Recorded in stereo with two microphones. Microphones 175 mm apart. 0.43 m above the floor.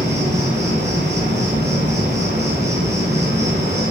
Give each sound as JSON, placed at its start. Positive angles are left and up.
{"t": 0.0, "sound": "an insect", "side_deg": -85, "distance_m": 1.8}